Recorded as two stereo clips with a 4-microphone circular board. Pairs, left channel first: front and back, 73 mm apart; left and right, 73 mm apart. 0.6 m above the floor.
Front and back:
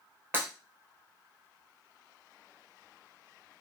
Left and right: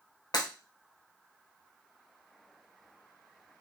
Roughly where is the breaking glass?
Behind left.